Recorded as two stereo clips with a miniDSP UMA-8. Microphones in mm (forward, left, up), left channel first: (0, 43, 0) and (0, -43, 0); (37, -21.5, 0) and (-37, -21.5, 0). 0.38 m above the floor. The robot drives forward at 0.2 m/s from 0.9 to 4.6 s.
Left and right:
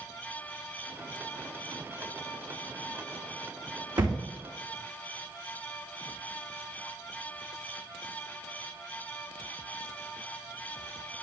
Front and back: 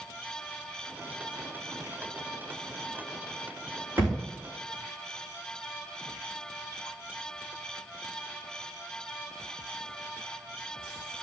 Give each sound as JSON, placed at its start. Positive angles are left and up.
{"t": 4.0, "sound": "a thud", "azimuth_deg": -115, "distance_m": 5.0}